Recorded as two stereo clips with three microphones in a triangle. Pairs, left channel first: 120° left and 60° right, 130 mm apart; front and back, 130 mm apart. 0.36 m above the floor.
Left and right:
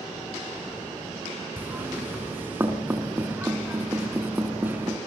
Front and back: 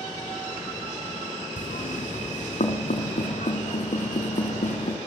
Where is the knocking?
15° left, 3.5 m.